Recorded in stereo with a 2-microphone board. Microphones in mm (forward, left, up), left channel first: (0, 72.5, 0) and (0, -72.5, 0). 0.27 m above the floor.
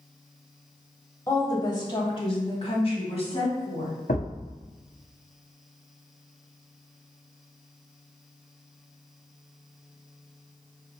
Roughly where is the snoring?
No snoring in this recording.